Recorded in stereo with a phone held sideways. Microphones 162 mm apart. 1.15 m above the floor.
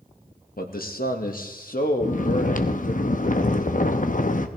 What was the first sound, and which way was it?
A man speaking, 75° left (ahead or behind).